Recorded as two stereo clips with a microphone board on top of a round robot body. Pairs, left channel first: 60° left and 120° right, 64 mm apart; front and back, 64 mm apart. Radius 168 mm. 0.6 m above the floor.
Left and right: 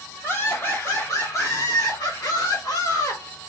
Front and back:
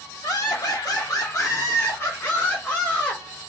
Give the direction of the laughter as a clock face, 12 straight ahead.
12 o'clock.